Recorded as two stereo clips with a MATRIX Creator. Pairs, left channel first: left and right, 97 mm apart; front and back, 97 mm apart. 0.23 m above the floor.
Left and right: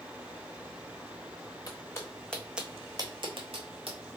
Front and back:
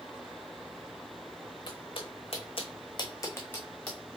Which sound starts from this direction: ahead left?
Footsteps, at 1.7 s.